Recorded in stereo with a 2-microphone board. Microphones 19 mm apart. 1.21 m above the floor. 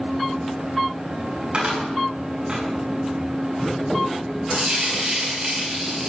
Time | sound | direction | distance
1.5 | a cupboard door | 45° right (ahead or behind) | 6.5 m
4.5 | frying | 40° right (ahead or behind) | 6.5 m